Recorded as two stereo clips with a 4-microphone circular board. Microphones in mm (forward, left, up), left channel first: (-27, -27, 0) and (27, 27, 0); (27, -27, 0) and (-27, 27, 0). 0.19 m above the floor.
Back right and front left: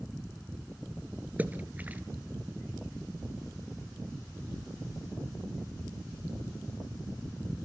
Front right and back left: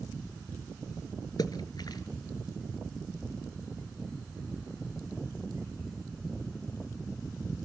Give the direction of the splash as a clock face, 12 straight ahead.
1 o'clock.